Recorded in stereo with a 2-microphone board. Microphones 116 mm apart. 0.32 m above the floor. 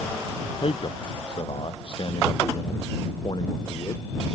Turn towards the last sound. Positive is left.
turn(degrees=40)  # may be behind; listen again after turning